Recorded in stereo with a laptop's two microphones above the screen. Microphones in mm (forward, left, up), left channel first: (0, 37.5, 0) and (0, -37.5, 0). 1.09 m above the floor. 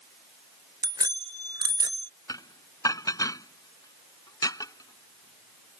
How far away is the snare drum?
No snare drum in this recording.